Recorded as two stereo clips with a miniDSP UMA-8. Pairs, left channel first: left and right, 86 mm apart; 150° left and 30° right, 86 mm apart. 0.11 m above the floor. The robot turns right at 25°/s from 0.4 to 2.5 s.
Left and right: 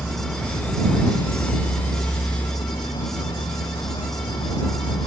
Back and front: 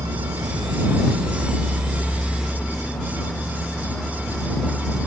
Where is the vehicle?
10° left; by 5.1 s 65° left.